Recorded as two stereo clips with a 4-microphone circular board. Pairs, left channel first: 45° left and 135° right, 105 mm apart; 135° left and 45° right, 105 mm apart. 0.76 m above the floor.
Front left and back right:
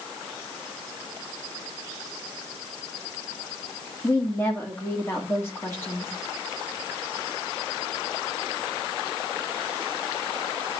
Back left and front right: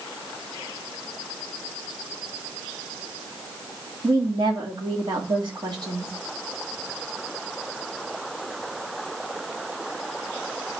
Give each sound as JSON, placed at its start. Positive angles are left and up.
{"t": 4.0, "sound": "a woman speaking", "azimuth_deg": -15, "distance_m": 1.7}